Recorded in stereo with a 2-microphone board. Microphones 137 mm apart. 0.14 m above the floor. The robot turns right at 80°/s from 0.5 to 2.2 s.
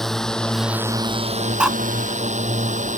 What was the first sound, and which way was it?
A drone, centre (ahead or behind).